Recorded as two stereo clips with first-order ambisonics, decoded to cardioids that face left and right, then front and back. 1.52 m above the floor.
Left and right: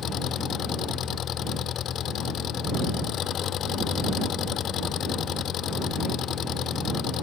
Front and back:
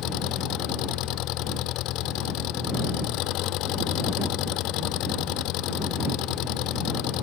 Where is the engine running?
35° left.